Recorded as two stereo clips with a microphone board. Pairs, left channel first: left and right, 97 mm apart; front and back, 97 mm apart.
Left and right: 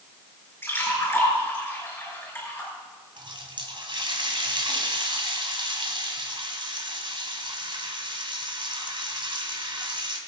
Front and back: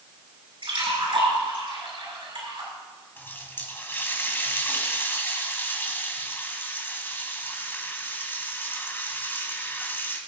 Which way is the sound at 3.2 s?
65° right.